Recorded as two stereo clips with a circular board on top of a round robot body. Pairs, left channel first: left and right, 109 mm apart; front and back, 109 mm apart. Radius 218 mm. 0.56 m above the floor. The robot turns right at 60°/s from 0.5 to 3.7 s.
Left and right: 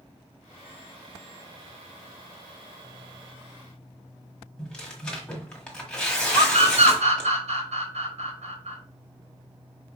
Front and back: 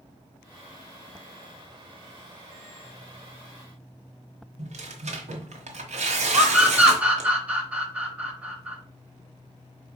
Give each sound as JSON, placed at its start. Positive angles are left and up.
{"t": 4.6, "sound": "tearing paper", "azimuth_deg": 170, "distance_m": 1.4}
{"t": 6.3, "sound": "a scream", "azimuth_deg": -100, "distance_m": 4.0}